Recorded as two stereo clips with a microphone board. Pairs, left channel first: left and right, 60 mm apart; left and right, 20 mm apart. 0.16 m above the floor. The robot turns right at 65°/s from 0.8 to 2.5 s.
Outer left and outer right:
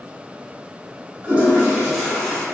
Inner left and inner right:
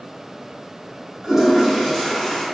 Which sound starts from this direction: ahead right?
A toilet flushing, at 1.2 s.